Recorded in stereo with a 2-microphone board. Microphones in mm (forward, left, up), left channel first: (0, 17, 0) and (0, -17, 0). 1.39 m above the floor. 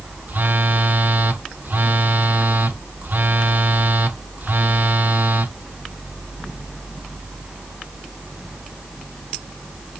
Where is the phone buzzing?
60° right (ahead or behind), 0.9 m.